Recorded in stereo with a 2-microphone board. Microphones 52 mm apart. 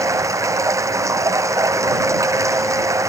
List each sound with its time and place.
0.0 s running water: 80° right